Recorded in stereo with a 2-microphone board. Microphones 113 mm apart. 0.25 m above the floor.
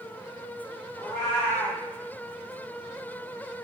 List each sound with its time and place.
1.0 s a cat meowing: 20° left (ahead or behind), 1.7 m